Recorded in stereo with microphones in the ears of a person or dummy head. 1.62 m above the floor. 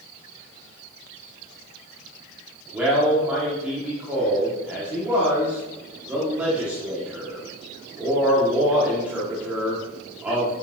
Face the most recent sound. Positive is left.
turn(degrees=-10)  # may be behind; listen again after turning